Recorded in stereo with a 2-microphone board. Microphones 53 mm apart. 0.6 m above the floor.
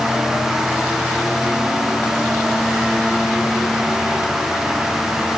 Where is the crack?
No crack in this recording.